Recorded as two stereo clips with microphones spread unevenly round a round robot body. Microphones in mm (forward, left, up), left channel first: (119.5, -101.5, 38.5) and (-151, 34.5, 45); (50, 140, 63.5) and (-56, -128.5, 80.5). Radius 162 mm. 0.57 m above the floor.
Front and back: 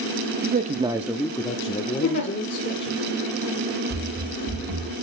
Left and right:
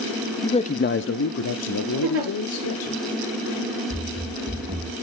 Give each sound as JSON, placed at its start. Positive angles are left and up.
{"t": 0.4, "sound": "a man speaking", "azimuth_deg": 130, "distance_m": 0.7}
{"t": 2.0, "sound": "a giggle", "azimuth_deg": -65, "distance_m": 5.0}
{"t": 3.9, "sound": "running footsteps", "azimuth_deg": 165, "distance_m": 1.5}